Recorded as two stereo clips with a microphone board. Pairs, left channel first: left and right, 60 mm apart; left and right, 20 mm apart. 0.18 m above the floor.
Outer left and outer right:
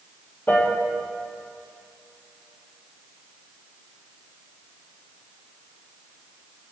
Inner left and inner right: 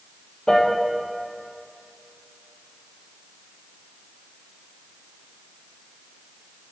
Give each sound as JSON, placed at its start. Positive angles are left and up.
{"t": 0.5, "sound": "a piano", "side_deg": 35, "distance_m": 1.1}